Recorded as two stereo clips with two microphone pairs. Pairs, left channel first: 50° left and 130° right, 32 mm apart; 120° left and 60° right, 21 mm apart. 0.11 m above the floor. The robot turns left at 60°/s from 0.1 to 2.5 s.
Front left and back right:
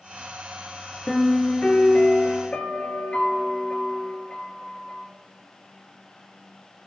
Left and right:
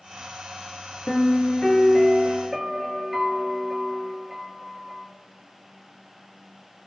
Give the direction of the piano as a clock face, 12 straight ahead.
8 o'clock.